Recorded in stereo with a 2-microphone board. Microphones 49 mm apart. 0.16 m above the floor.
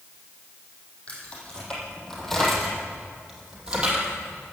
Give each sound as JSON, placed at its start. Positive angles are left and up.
{"t": 1.1, "sound": "keys jangling", "side_deg": 25, "distance_m": 4.0}